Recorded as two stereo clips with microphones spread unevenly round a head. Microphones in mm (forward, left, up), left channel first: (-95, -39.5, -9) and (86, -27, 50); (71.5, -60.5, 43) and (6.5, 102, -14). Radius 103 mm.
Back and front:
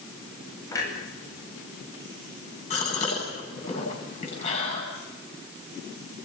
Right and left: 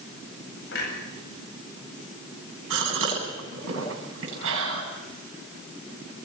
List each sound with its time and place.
0.7 s a clunk: 100° right, 9 m
2.7 s a gasp: 125° left, 9.5 m